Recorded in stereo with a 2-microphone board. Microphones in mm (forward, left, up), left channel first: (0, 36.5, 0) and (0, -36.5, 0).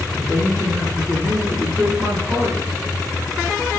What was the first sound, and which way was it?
A man speaking, 15° right (ahead or behind).